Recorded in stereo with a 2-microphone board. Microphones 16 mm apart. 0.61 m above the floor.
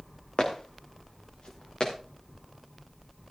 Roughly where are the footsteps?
Left.